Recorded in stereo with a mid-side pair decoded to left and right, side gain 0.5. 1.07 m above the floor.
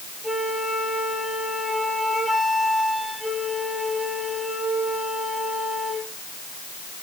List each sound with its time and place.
0.2 s a flute: 5° right, 9 m